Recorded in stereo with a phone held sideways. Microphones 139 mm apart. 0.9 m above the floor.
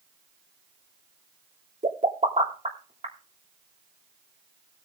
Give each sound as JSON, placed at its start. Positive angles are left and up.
{"t": 1.8, "sound": "a pop", "side_deg": -50, "distance_m": 3.0}